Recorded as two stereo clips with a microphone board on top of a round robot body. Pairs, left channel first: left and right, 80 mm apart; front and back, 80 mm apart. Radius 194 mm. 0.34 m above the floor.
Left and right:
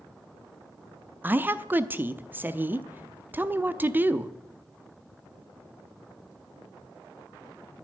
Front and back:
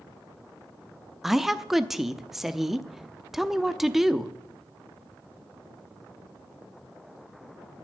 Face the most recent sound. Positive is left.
turn(degrees=-100)